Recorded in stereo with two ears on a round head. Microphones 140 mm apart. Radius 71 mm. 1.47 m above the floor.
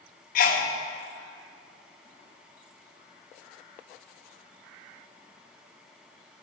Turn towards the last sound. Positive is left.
turn(degrees=60)  # may be behind; listen again after turning